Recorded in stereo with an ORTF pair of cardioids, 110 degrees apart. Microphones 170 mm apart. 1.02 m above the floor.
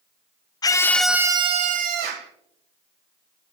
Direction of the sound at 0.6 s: 25° left.